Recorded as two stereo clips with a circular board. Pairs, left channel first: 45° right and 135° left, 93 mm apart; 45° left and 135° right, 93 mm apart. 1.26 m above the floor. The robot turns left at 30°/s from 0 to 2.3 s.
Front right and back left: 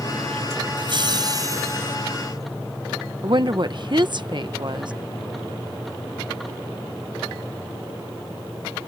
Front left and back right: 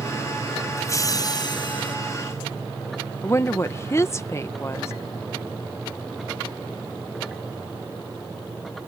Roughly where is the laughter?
Left.